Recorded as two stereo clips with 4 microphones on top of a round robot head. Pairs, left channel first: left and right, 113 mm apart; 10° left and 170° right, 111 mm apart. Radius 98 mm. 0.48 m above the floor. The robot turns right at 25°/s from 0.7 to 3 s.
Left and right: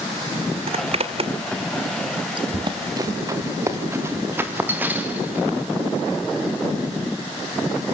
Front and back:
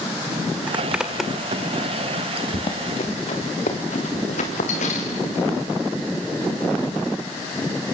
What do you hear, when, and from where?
0.7 s a zipper: 95° right, 2.0 m; by 2.4 s 50° right, 2.0 m
2.5 s running footsteps: 50° right, 4 m; by 5.5 s 15° right, 5.5 m